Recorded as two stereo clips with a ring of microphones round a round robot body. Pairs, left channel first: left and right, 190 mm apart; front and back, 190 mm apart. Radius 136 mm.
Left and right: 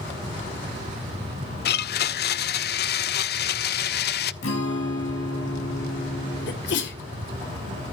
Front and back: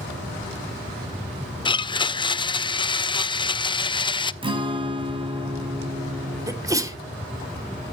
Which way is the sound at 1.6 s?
65° left.